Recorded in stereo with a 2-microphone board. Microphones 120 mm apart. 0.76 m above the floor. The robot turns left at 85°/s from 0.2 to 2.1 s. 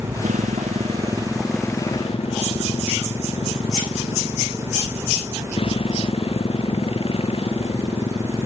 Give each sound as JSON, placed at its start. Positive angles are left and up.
{"t": 0.0, "sound": "a motorcycle", "azimuth_deg": -70}